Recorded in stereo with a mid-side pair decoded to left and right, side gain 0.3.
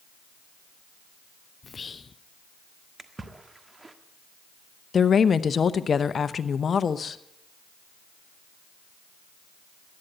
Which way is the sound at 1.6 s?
45° left.